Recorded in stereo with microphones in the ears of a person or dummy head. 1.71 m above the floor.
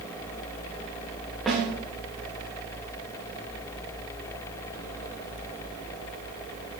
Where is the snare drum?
Centre (ahead or behind), 2 m.